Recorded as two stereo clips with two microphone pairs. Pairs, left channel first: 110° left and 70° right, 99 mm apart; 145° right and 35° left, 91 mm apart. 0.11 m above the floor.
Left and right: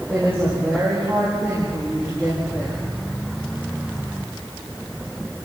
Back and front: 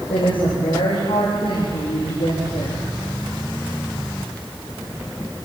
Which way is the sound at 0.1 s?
140° right.